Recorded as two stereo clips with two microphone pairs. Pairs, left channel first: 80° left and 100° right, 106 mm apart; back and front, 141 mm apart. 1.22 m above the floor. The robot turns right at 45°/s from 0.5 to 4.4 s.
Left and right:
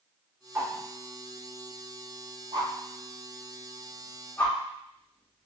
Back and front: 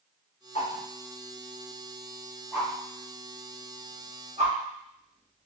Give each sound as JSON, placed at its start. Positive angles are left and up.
{"t": 0.6, "sound": "a whoosh", "azimuth_deg": -165, "distance_m": 1.2}